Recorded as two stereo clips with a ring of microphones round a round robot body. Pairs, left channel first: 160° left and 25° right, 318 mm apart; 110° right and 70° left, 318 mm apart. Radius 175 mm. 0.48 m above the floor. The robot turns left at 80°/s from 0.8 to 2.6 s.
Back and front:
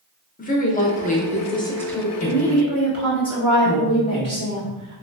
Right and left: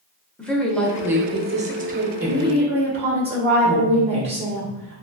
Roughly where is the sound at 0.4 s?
Behind.